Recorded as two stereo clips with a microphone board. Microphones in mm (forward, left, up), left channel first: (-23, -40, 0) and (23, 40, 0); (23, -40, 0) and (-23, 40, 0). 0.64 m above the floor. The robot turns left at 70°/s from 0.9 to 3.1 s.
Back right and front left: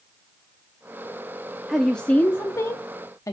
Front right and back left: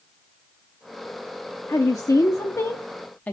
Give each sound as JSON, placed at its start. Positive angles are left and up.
{"t": 1.7, "sound": "a woman speaking", "azimuth_deg": -25, "distance_m": 0.7}